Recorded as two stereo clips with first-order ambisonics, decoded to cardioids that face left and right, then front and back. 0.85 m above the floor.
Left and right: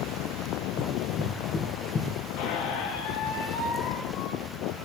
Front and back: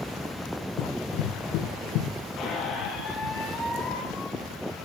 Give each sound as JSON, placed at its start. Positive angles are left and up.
{"t": 0.8, "sound": "running footsteps", "azimuth_deg": 20, "distance_m": 3.5}
{"t": 2.4, "sound": "a squeak", "azimuth_deg": 60, "distance_m": 6.0}